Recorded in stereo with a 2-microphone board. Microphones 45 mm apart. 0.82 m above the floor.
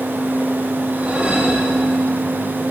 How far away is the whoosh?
About 1.2 m.